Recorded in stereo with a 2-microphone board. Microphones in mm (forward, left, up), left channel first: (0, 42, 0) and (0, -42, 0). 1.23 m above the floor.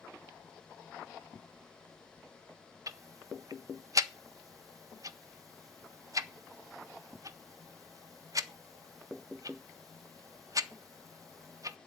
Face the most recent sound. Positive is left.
turn(degrees=-50)  # may be behind; listen again after turning